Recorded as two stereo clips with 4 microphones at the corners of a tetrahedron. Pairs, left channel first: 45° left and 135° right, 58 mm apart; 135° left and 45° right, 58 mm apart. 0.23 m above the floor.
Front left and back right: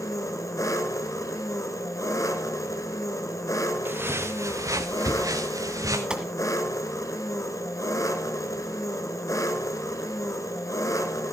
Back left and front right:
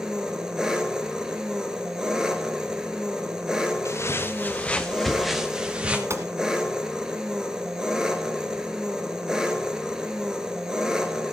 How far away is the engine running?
About 1.6 m.